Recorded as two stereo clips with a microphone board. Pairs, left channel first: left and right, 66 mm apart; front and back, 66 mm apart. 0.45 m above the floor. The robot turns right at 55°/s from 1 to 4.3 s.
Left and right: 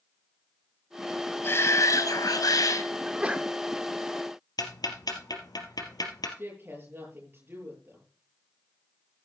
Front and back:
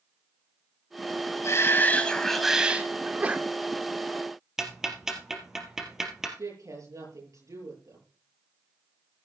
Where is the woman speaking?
150° right, 8.5 m.